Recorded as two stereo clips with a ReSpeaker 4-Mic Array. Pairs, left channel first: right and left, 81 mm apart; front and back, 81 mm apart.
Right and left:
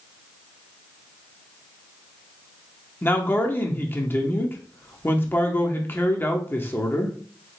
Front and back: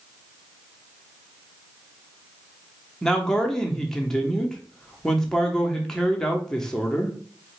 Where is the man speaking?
75° right, 0.7 m.